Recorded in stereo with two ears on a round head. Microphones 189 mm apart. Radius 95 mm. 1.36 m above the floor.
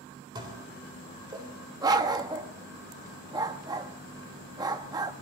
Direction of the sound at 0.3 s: 20° right (ahead or behind).